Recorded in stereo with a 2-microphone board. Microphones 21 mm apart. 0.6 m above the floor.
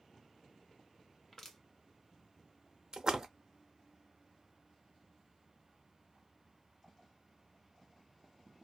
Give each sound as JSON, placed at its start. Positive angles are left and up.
{"t": 1.3, "sound": "crushing", "side_deg": 20, "distance_m": 0.7}
{"t": 2.9, "sound": "a splash", "side_deg": -35, "distance_m": 0.7}